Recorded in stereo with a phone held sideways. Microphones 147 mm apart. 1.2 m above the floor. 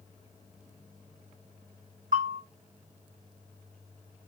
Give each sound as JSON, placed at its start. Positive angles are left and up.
{"t": 2.1, "sound": "a bell", "side_deg": -60, "distance_m": 1.2}